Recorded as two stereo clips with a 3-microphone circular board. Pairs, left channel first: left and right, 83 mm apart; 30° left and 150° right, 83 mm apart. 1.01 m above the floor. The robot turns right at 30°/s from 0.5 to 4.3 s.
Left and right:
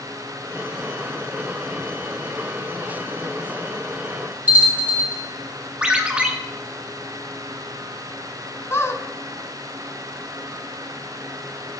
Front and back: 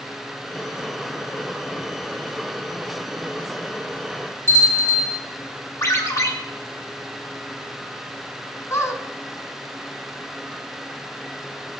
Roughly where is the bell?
Ahead.